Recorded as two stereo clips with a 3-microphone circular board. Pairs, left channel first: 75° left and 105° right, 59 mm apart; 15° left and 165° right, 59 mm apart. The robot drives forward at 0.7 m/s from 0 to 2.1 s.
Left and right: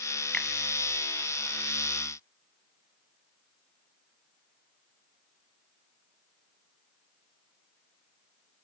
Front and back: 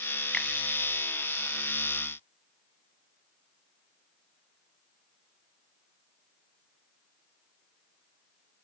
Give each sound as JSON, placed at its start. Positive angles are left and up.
{"t": 0.3, "sound": "a finger snap", "azimuth_deg": 45, "distance_m": 1.1}